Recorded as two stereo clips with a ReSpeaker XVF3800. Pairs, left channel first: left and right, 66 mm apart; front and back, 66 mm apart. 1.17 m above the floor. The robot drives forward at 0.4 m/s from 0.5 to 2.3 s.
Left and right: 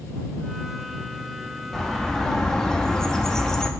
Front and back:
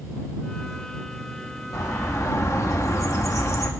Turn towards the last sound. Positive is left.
turn(degrees=10)